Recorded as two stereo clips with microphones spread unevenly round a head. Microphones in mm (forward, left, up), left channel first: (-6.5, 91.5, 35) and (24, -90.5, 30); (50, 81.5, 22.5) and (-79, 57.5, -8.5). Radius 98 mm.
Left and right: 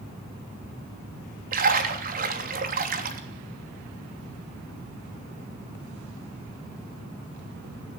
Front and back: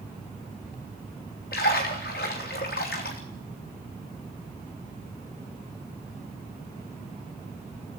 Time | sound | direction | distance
1.5 | a splash | 40° right | 3 m